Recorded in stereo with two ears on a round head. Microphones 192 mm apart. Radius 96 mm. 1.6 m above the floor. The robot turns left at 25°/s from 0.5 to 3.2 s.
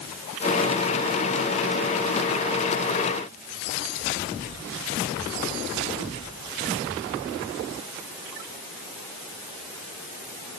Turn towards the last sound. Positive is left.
No sound to turn to.